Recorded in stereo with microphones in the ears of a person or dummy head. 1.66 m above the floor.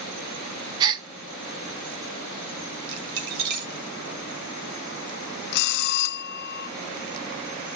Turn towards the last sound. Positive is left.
turn(degrees=50)  # may be behind; listen again after turning